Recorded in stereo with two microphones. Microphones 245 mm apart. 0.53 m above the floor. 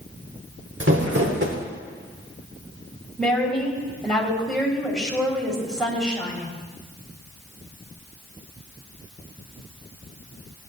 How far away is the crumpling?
About 1.4 m.